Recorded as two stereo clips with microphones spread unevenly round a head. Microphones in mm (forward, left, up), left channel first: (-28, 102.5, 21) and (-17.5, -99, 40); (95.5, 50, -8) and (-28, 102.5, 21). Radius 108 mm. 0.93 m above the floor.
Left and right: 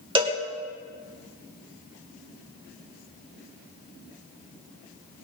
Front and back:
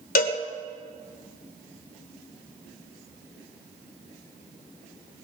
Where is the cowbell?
20° right, 1.8 m.